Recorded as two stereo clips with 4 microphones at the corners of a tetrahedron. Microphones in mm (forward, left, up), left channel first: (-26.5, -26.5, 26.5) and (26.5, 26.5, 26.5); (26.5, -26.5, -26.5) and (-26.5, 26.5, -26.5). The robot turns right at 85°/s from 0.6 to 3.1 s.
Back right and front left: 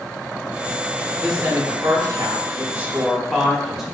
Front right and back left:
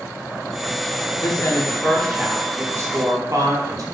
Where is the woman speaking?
35° right, 0.5 m; by 3.8 s 130° left, 0.5 m.